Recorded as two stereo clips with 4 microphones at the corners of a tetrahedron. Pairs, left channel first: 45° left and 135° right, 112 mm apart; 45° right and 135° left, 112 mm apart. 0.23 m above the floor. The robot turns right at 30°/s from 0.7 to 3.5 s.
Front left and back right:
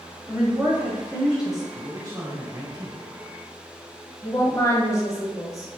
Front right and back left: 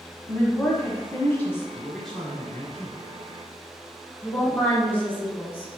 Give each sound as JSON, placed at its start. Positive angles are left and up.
{"t": 0.3, "sound": "a woman speaking", "azimuth_deg": -75, "distance_m": 1.1}
{"t": 1.7, "sound": "a man speaking", "azimuth_deg": -135, "distance_m": 1.4}
{"t": 4.2, "sound": "a woman speaking", "azimuth_deg": 15, "distance_m": 1.1}